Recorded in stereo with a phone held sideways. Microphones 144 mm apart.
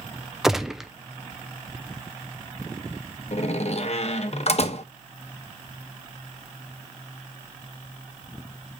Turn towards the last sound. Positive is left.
turn(degrees=50)  # may be behind; listen again after turning